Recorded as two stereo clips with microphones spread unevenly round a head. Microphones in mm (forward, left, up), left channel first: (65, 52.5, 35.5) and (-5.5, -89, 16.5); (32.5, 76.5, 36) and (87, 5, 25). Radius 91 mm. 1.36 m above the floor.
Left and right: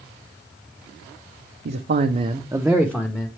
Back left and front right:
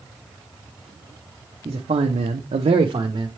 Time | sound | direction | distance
1.6 | a man speaking | 105° right | 0.7 m